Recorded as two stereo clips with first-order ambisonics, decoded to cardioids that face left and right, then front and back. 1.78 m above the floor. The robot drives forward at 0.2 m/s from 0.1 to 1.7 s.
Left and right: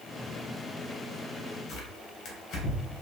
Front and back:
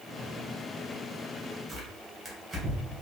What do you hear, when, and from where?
1.7 s tearing paper: 120° left, 1.0 m